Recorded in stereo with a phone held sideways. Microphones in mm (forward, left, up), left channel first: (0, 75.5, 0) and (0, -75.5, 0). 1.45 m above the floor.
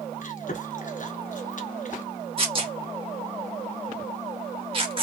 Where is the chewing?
55° left (ahead or behind), 0.9 m.